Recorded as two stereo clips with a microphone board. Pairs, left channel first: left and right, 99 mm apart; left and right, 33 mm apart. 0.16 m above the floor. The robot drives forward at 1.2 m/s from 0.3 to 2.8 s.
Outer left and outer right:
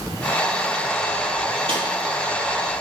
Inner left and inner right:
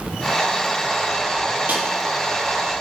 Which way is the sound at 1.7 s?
65° right (ahead or behind).